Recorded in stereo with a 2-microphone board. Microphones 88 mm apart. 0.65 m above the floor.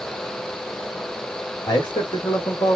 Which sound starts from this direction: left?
A man speaking, at 1.7 s.